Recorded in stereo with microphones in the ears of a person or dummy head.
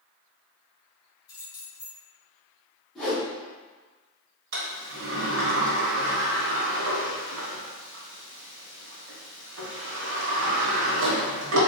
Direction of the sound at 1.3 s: 30° left (ahead or behind).